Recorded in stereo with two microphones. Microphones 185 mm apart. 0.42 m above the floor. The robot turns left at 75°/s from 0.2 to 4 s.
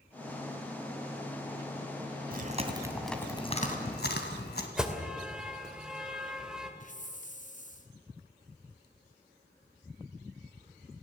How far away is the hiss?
About 2 m.